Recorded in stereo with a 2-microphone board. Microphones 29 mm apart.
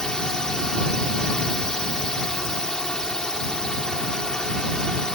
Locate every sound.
0.0 s a drone: 25° left (ahead or behind)